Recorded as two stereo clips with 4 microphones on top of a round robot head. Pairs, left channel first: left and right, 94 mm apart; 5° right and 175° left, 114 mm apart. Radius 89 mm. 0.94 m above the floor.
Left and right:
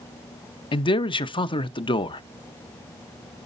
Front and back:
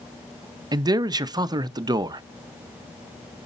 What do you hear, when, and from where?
0.7 s a man speaking: 120° left, 0.6 m